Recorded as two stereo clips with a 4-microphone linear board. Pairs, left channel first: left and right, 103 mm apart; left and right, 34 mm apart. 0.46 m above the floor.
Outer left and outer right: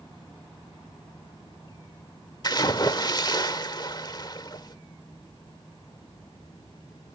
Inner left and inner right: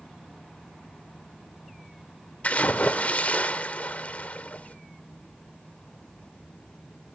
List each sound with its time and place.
2.4 s a splash: 40° left (ahead or behind), 1.2 m